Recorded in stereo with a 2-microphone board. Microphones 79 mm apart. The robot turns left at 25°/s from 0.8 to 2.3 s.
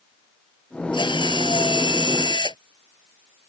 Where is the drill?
105° left; by 2.6 s 70° left.